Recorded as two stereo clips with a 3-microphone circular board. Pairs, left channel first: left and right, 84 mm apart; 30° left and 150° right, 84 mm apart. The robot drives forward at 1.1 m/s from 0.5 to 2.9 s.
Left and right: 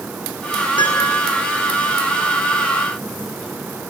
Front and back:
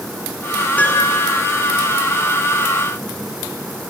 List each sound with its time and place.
0.8 s a piano: 100° left, 7 m; by 1.2 s 105° left, 7 m